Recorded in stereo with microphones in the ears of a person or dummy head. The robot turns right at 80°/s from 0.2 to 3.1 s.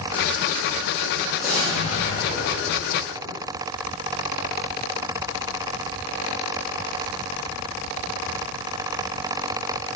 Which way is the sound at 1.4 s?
170° right.